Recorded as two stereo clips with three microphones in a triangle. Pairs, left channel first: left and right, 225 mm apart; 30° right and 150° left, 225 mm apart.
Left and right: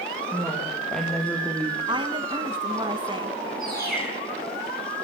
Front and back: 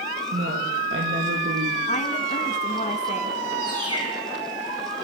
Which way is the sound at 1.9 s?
40° right.